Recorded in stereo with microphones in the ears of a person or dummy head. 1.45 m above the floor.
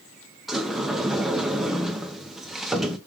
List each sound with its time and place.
0.5 s a sliding door: 5° right (ahead or behind), 0.7 m